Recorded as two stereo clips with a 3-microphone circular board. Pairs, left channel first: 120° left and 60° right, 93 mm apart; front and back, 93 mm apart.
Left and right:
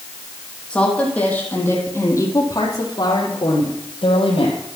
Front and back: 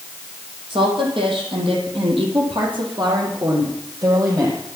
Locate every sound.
0.7 s a woman speaking: 160° right, 5.5 m; by 4.6 s 125° left, 4.5 m